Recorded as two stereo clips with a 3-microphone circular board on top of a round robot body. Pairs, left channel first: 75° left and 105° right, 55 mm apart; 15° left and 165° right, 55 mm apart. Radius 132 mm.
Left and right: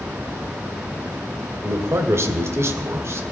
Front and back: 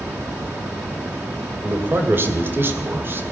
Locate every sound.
1.6 s a man speaking: 125° right, 2.5 m